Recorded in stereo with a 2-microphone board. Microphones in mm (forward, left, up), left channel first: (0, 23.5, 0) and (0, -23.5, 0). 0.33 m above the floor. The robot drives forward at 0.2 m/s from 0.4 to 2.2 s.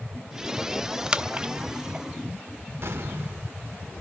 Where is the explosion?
65° right (ahead or behind), 1.5 m.